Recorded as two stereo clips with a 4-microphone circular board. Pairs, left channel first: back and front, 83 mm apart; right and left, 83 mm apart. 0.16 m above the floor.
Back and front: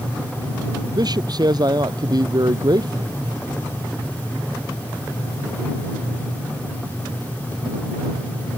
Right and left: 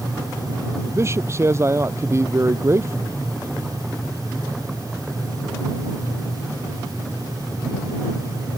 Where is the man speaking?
35° left.